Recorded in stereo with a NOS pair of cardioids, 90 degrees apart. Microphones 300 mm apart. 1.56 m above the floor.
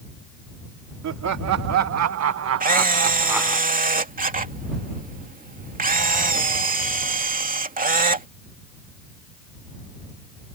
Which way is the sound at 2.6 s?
25° right.